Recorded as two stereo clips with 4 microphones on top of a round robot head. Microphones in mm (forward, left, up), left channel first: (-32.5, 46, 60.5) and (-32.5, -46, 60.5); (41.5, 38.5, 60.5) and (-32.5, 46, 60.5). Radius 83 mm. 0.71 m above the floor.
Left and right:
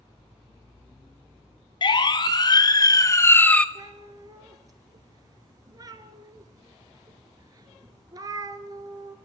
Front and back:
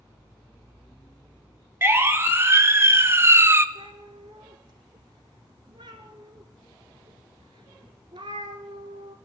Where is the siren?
120° left, 3 m; by 3.6 s 160° left, 1.3 m.